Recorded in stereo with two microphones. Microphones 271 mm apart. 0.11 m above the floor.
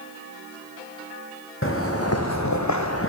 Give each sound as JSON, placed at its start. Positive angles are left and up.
{"t": 1.6, "sound": "footsteps", "side_deg": 45, "distance_m": 1.8}